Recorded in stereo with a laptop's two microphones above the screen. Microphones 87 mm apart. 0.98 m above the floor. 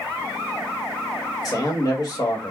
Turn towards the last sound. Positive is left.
turn(degrees=45)  # may be behind; listen again after turning